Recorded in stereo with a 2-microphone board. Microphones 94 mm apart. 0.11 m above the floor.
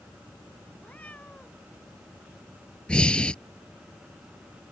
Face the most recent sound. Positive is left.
turn(degrees=10)  # may be behind; listen again after turning